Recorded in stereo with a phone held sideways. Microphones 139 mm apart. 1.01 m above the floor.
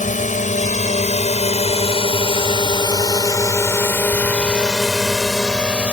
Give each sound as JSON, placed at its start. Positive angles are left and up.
{"t": 0.0, "sound": "a drone", "side_deg": 65}